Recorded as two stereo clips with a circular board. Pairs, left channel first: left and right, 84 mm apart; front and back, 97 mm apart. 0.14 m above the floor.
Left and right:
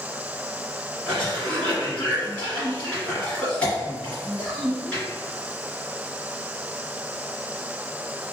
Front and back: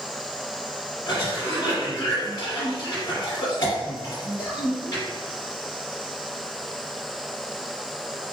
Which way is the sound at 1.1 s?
20° left.